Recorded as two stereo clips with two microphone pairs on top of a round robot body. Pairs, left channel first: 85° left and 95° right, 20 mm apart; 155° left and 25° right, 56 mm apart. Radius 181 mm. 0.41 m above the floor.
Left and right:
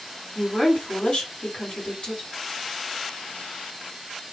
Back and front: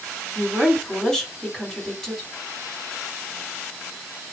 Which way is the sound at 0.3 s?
70° left.